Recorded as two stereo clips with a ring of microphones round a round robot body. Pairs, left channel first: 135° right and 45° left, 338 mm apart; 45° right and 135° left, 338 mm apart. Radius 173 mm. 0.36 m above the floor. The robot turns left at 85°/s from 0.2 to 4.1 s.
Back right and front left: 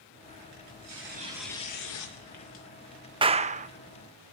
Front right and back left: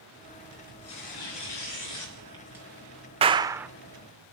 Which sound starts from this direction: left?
A clap, at 3.2 s.